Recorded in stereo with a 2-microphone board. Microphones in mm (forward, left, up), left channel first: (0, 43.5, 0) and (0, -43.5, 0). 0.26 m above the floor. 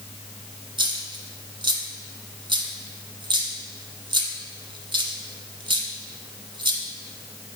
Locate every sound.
0.8 s a dropped coin: 70° right (ahead or behind), 1.0 m